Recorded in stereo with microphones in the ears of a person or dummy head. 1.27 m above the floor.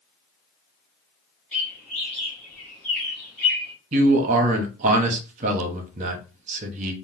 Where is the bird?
10° left (ahead or behind), 1.2 m.